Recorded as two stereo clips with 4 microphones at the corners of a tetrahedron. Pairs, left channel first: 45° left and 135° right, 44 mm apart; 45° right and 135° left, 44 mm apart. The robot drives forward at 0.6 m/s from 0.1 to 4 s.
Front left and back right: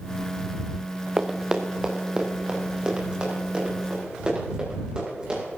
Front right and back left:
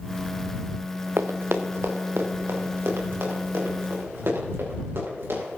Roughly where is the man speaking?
No man speaking in this recording.